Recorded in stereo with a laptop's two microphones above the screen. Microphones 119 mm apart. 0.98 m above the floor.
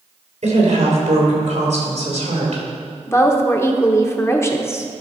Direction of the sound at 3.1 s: 20° left (ahead or behind).